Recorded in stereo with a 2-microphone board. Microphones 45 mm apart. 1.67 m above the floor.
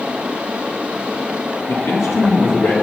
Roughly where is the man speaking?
Left.